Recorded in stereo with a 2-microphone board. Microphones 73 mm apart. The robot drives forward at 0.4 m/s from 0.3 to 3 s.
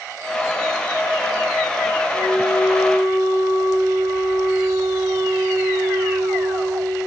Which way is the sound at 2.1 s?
60° right (ahead or behind).